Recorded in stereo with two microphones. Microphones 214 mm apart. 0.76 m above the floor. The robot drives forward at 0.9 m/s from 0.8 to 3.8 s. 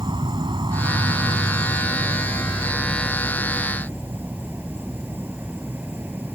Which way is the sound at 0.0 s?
25° right (ahead or behind).